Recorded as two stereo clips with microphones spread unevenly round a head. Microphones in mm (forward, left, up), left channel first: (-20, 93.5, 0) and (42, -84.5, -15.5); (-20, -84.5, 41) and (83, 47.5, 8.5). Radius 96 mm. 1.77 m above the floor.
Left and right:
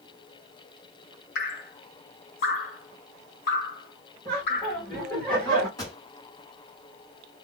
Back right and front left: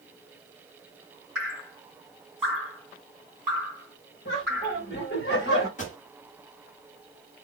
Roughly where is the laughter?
Behind.